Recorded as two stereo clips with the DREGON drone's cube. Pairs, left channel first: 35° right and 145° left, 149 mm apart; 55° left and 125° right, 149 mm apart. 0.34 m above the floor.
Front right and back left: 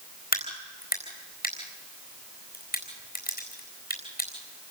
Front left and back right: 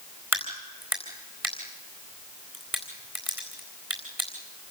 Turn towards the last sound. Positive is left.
turn(degrees=-50)